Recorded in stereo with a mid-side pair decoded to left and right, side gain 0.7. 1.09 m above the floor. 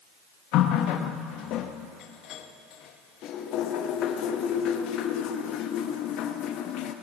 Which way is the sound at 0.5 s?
55° left.